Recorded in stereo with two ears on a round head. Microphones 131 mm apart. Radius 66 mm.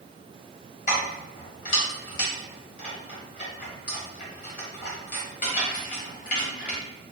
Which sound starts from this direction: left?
Keys jangling, at 0.9 s.